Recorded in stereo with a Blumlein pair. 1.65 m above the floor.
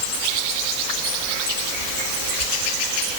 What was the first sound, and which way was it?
Only background noise.